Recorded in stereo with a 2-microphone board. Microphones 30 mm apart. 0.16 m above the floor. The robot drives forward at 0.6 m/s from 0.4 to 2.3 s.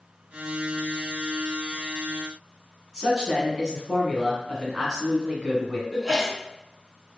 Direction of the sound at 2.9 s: 20° right (ahead or behind).